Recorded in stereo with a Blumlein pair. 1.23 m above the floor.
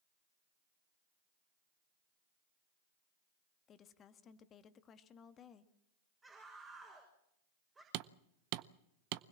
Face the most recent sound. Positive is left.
turn(degrees=-40)